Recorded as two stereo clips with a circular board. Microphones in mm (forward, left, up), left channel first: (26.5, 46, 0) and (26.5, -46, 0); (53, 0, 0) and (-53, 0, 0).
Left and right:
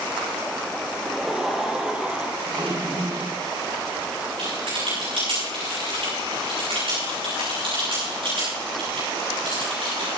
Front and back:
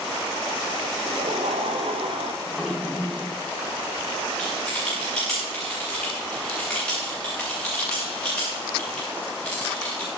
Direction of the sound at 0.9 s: Straight behind.